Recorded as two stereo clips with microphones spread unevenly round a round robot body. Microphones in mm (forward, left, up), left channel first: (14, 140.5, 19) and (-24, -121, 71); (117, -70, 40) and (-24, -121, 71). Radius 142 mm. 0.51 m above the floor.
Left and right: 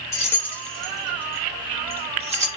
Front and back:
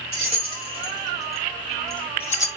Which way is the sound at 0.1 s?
150° left.